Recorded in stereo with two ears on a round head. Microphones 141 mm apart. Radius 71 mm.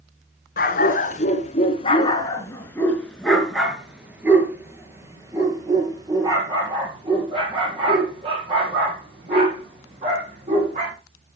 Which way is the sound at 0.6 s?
60° left (ahead or behind).